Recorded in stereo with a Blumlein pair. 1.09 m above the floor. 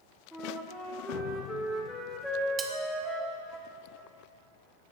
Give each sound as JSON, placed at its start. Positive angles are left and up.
{"t": 0.3, "sound": "a flute", "azimuth_deg": 0, "distance_m": 1.5}
{"t": 2.6, "sound": "cutlery clinking", "azimuth_deg": -15, "distance_m": 1.0}